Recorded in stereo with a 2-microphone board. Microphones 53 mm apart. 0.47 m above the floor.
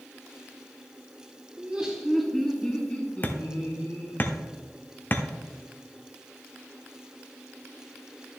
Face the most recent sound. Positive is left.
turn(degrees=35)  # may be behind; listen again after turning